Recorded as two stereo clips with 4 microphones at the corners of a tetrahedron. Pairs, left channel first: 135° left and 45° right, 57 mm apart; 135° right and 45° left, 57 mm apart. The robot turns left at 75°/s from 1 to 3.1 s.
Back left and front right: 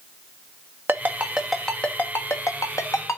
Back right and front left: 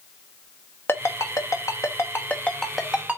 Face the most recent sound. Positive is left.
turn(degrees=110)